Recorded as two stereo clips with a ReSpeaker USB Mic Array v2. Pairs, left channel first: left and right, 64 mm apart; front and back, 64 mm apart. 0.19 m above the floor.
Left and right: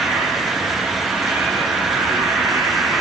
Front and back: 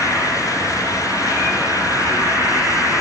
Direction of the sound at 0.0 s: 155° right.